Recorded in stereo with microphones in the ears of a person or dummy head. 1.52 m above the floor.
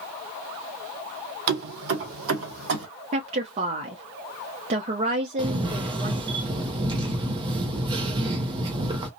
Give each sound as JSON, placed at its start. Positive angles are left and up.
{"t": 1.5, "sound": "keys jangling", "side_deg": -55, "distance_m": 0.8}
{"t": 3.1, "sound": "a woman speaking", "side_deg": -35, "distance_m": 0.5}
{"t": 5.4, "sound": "a camera shutter", "side_deg": -25, "distance_m": 0.5}